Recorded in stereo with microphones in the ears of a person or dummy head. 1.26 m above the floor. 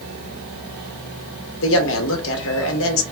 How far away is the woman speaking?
About 0.9 m.